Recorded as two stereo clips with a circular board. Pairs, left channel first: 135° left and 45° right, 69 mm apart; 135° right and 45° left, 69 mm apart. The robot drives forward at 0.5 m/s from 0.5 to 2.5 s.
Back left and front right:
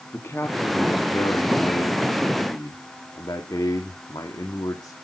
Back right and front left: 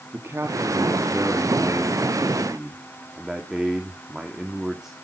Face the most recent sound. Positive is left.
turn(degrees=130)